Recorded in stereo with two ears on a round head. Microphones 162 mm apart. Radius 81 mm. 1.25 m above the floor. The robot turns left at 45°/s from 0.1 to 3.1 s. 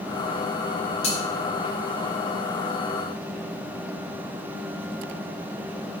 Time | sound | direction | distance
1.0 | cutlery clinking | 35° left (ahead or behind) | 1.4 m